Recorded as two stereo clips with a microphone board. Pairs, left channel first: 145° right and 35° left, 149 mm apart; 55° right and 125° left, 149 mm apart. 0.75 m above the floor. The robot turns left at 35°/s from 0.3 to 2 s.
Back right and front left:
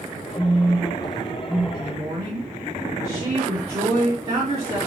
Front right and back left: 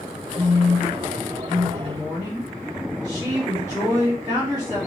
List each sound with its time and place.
0.4 s a phone buzzing: 145° right, 1.2 m; by 1.6 s 170° left, 1.2 m
1.7 s a woman speaking: 80° left, 1.4 m; by 4.8 s 70° left, 1.4 m